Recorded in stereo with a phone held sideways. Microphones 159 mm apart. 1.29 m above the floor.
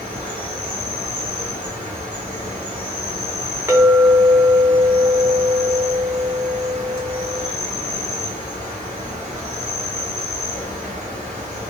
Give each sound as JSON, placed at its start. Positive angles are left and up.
{"t": 0.0, "sound": "an insect", "side_deg": -50, "distance_m": 1.0}
{"t": 3.7, "sound": "a clink", "side_deg": -15, "distance_m": 0.5}